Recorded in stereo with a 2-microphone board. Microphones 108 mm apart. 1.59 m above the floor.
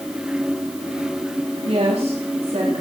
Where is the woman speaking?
70° right (ahead or behind), 4 m.